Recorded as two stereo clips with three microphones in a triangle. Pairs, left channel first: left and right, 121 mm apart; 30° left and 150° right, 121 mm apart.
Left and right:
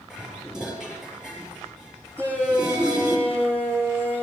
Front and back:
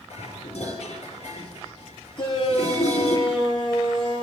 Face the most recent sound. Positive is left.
turn(degrees=-20)